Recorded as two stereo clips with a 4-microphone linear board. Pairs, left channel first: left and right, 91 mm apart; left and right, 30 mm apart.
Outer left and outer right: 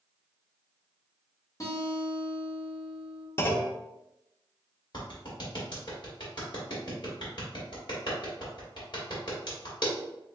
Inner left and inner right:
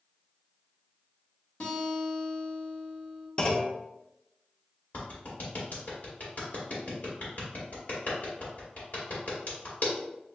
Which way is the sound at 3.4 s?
25° left (ahead or behind).